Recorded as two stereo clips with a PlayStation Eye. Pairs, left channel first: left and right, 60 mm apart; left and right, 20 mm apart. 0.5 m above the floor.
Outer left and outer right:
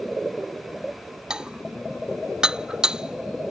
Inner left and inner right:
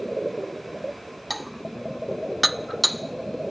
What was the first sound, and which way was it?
Dishes clattering, 10° right (ahead or behind).